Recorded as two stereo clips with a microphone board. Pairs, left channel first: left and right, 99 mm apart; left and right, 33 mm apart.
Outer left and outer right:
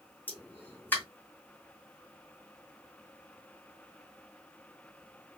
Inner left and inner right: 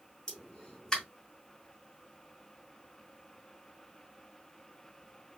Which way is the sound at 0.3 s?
20° left (ahead or behind).